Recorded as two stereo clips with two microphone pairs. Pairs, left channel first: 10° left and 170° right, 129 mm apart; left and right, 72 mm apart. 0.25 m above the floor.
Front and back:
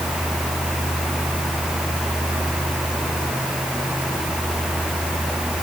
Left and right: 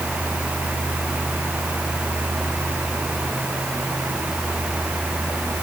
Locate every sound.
Only background noise.